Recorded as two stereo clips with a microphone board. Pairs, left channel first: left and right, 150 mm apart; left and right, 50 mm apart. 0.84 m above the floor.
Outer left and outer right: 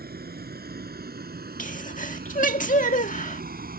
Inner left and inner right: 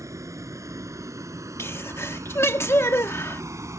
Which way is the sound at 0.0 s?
90° right.